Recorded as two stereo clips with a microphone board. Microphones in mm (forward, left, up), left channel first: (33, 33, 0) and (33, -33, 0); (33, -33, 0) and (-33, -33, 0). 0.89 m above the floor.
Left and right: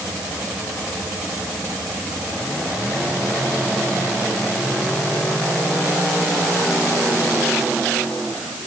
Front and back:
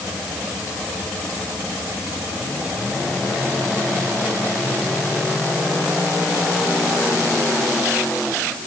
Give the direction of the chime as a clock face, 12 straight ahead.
I don't hear a chime.